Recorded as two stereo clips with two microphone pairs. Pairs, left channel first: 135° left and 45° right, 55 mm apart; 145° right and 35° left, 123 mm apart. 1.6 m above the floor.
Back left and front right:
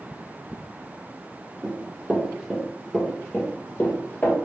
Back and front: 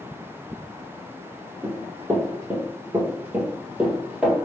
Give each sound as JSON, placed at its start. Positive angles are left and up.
{"t": 1.6, "sound": "running footsteps", "azimuth_deg": -15, "distance_m": 1.8}